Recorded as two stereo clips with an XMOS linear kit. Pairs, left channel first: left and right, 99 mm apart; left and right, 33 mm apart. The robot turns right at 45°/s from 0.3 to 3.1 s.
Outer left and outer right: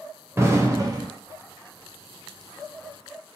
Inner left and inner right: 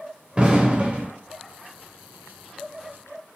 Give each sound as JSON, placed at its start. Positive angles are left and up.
{"t": 0.4, "sound": "an explosion", "azimuth_deg": -140, "distance_m": 0.6}